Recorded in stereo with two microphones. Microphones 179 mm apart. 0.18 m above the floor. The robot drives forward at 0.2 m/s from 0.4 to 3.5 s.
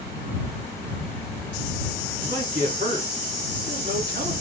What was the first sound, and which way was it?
A man speaking, 55° right (ahead or behind).